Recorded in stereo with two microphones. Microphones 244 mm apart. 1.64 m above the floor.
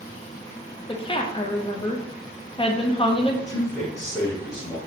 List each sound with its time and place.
0.9 s a woman speaking: 25° left (ahead or behind), 0.5 m
3.5 s a man speaking: 15° left (ahead or behind), 1.0 m